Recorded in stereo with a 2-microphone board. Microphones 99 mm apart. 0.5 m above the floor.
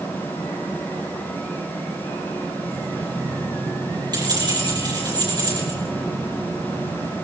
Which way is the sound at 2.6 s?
45° right (ahead or behind).